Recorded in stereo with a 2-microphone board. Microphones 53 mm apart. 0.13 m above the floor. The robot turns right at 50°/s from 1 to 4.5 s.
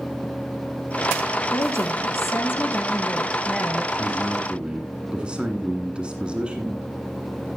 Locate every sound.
1.5 s a woman speaking: 85° left, 2 m; by 3.9 s 160° right, 2 m
4.0 s a man speaking: 20° right (ahead or behind), 1.7 m